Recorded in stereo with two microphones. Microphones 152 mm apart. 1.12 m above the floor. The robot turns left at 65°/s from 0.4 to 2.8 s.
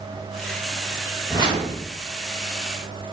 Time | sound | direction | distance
1.3 | a whoosh | 25° right | 1.5 m